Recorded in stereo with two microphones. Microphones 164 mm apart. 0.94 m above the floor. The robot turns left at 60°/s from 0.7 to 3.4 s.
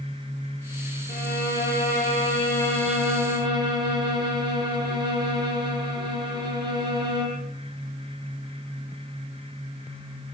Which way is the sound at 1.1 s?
110° left.